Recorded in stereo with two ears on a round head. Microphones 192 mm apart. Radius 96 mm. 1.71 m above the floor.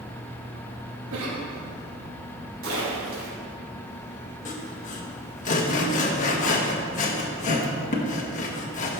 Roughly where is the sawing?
Left.